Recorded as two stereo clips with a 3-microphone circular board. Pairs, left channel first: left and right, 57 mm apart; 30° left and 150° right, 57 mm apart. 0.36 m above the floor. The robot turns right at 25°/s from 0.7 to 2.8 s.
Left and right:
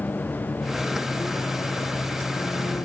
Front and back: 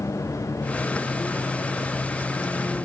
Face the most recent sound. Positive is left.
turn(degrees=85)